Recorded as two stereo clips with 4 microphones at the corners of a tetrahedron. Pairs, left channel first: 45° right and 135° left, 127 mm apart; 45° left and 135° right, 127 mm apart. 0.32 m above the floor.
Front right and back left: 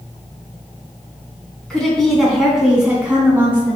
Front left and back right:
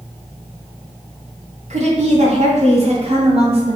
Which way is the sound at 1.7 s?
130° right.